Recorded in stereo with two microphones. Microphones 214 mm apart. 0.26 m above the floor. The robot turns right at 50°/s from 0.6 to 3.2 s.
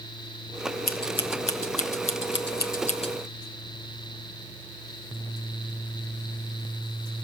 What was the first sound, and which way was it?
Scissors, 45° left (ahead or behind).